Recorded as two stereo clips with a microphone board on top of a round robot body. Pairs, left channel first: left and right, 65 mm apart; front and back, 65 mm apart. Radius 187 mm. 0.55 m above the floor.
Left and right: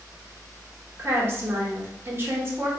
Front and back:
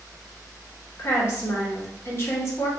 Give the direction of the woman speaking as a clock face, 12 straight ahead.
1 o'clock.